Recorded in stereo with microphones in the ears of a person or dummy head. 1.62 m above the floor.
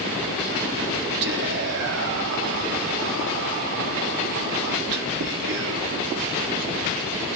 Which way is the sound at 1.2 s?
65° right (ahead or behind).